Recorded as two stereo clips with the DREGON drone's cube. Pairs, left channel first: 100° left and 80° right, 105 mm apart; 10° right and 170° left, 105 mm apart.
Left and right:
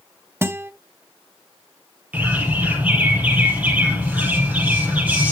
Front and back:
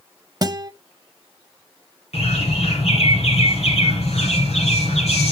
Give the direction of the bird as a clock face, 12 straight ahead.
12 o'clock.